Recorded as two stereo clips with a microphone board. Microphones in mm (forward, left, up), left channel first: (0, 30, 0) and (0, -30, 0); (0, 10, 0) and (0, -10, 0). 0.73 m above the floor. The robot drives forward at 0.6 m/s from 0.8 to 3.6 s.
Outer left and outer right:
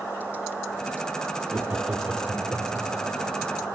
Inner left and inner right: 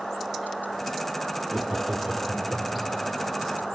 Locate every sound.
1.5 s laughter: 20° right (ahead or behind), 1.6 m; by 2.9 s 15° right (ahead or behind), 2.5 m